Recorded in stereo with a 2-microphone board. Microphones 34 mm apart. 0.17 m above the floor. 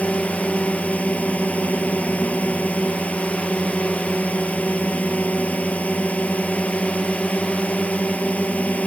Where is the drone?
45° left (ahead or behind).